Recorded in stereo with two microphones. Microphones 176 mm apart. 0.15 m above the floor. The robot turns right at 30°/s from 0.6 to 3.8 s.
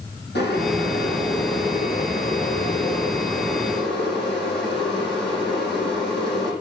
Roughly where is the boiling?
Left.